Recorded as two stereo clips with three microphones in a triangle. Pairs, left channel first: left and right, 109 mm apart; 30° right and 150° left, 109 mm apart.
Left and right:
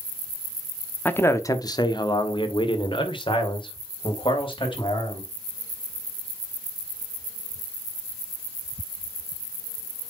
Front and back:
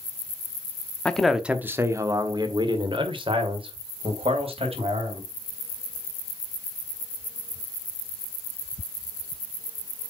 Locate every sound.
1.1 s a man speaking: 35° left, 0.9 m; by 5.3 s 130° left, 3.5 m